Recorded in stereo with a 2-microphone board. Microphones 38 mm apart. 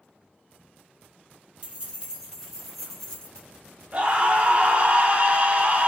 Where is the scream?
35° right (ahead or behind), 0.7 m.